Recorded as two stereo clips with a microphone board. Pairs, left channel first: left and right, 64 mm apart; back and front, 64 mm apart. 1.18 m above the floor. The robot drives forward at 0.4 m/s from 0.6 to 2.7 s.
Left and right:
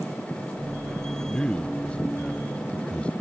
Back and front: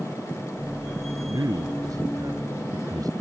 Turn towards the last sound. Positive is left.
turn(degrees=20)